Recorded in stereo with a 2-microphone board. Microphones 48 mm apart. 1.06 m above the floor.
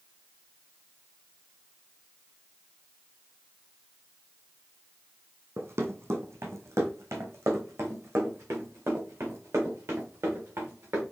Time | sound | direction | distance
5.6 | running footsteps | 60° right (ahead or behind) | 2.0 m